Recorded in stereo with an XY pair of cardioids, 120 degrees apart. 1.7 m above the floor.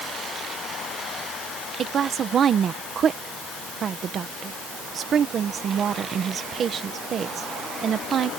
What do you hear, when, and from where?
1.8 s a woman speaking: 50° right